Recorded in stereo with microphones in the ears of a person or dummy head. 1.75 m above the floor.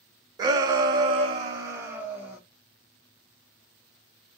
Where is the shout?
25° right (ahead or behind), 0.9 m; by 2.4 s 10° right (ahead or behind), 1.0 m.